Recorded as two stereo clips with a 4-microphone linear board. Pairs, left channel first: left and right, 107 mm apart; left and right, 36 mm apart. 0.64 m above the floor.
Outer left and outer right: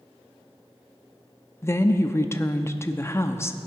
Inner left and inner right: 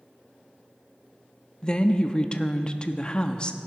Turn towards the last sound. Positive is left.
turn(degrees=25)  # may be behind; listen again after turning